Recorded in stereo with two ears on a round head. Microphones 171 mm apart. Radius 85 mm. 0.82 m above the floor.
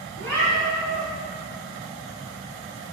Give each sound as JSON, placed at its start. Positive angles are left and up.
{"t": 0.2, "sound": "a cat meowing", "side_deg": -65, "distance_m": 2.5}